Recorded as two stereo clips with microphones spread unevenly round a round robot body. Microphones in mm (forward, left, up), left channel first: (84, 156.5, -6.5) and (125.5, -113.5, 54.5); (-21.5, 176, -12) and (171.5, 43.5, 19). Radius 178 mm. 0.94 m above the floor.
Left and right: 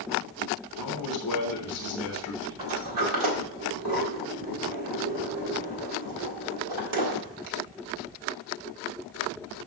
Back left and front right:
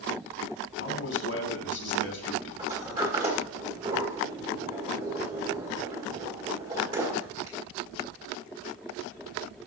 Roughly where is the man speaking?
Behind left.